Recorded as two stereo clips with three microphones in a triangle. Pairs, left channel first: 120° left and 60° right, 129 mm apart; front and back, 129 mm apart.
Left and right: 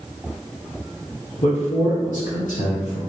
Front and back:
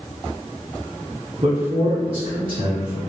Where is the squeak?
No squeak in this recording.